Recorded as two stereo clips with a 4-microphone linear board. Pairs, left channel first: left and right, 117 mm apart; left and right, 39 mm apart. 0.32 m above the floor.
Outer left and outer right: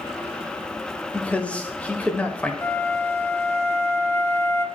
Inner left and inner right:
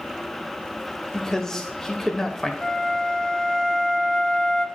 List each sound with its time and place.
1.1 s a man speaking: 10° left (ahead or behind), 0.9 m
2.6 s a flute: 20° left (ahead or behind), 0.6 m